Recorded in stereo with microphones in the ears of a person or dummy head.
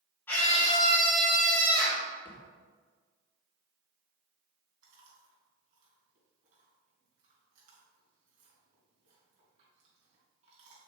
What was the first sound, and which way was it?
A scream, 15° left (ahead or behind).